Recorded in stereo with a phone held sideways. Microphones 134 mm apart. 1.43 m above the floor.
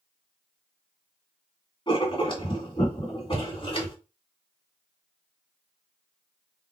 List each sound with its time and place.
1.9 s writing: 40° left (ahead or behind), 2 m